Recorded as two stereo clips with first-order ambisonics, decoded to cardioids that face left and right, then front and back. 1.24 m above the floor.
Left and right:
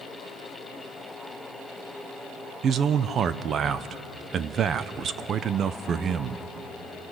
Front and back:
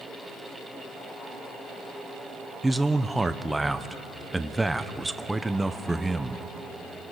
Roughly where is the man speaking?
Right.